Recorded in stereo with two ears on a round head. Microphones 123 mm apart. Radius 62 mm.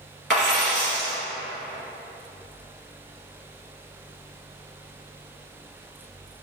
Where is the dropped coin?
Centre (ahead or behind), 1.9 m.